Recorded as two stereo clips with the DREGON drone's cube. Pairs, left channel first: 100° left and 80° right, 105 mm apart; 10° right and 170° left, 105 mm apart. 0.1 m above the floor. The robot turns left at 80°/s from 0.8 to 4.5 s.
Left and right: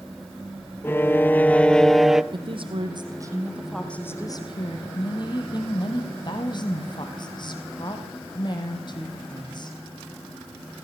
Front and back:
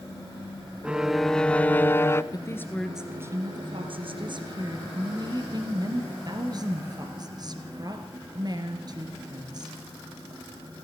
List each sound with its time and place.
0.8 s a violin: 105° left, 0.7 m; by 2.2 s 5° right, 0.7 m
2.3 s a woman speaking: 55° right, 2.5 m; by 9.8 s 130° left, 2.5 m